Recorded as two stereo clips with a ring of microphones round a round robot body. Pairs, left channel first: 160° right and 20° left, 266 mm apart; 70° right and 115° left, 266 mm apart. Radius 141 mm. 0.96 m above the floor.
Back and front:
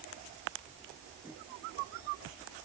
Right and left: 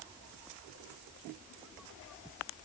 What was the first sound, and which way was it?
Only background noise.